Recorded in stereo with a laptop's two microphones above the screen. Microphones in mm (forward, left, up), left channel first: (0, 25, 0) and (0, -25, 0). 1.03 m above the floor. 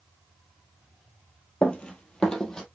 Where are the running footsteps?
25° left (ahead or behind), 1.2 m; by 2.6 s 15° left (ahead or behind), 1.8 m.